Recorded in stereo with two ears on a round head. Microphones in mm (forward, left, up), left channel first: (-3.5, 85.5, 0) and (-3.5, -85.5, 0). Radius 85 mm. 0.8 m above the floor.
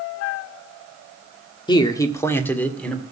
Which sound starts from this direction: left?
A man speaking, at 1.7 s.